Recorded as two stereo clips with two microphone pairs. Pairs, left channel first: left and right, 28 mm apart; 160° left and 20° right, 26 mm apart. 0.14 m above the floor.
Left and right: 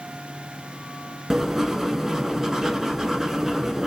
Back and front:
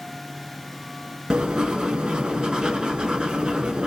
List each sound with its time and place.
1.3 s writing: 20° right, 0.9 m